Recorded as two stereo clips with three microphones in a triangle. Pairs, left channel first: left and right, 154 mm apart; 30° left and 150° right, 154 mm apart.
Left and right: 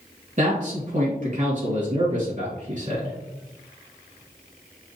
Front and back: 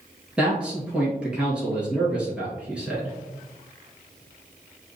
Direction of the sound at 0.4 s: 70° right.